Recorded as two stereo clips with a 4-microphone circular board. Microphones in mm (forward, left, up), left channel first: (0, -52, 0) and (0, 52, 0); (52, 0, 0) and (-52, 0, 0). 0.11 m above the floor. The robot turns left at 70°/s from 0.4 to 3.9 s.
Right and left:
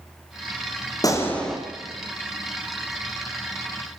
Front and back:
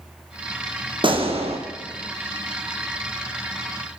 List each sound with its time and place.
1.0 s a gunshot: 145° right, 3 m; by 1.6 s 175° left, 3 m